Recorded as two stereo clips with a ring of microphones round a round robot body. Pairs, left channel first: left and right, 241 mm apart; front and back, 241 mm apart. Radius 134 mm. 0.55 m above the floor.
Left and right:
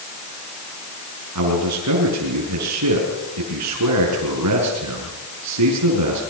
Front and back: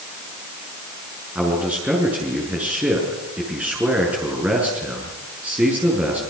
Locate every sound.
1.4 s a man speaking: 95° right, 6 m